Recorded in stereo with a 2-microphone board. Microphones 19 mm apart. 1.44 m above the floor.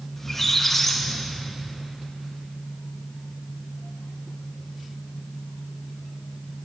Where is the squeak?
10° left (ahead or behind), 0.6 m.